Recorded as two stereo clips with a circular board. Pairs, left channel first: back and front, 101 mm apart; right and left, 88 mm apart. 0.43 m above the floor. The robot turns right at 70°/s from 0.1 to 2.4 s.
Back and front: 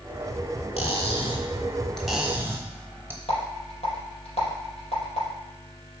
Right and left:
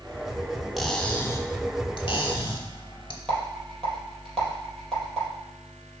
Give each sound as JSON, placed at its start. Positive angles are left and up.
{"t": 0.8, "sound": "cutlery clinking", "azimuth_deg": 180, "distance_m": 0.9}
{"t": 3.3, "sound": "a rattle", "azimuth_deg": -175, "distance_m": 4.0}